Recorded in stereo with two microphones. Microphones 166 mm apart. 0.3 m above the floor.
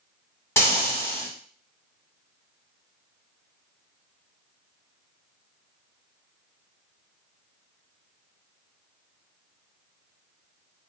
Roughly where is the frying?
Centre.